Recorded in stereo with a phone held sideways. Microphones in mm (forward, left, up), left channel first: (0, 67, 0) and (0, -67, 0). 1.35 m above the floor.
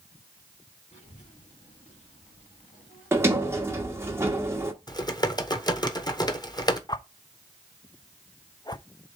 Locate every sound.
0.9 s a child speaking: 80° left, 1.8 m
3.1 s a sliding door: 20° right (ahead or behind), 1.1 m
4.9 s typing on a keyboard: 30° left (ahead or behind), 0.9 m
6.9 s a whoosh: 30° left (ahead or behind), 0.6 m